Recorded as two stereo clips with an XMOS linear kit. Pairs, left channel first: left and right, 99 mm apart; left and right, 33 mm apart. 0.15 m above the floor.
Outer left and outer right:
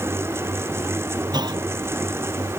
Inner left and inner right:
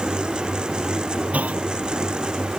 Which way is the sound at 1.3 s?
45° right (ahead or behind).